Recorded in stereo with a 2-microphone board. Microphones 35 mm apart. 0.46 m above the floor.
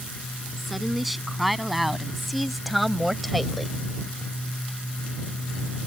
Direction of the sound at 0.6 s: Centre (ahead or behind).